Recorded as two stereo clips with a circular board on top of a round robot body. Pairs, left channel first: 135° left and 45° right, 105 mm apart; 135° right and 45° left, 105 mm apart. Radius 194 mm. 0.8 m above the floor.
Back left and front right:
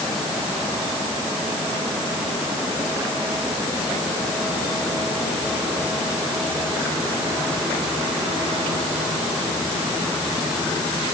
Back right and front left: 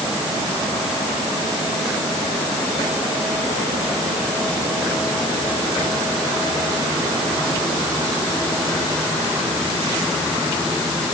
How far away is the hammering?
No hammering in this recording.